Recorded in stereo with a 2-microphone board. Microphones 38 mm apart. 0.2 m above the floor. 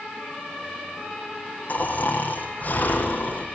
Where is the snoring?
45° left (ahead or behind), 5.5 m.